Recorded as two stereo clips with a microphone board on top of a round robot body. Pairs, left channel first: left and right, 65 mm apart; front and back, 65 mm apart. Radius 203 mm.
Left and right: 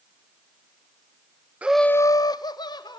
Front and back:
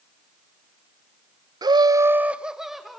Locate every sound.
1.6 s laughter: 160° right, 0.6 m; by 3.0 s 90° left, 1.9 m